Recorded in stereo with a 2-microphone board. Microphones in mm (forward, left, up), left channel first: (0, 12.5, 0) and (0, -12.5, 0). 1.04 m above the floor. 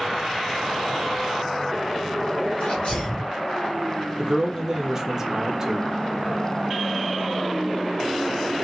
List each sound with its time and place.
2.6 s a sneeze: 75° left (ahead or behind), 2.5 m
4.2 s a man speaking: 25° right (ahead or behind), 1.0 m